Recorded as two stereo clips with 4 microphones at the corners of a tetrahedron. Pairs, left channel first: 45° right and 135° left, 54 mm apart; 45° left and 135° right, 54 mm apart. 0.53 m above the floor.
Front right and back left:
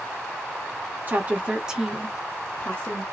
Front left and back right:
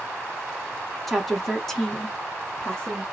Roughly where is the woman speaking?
Behind left.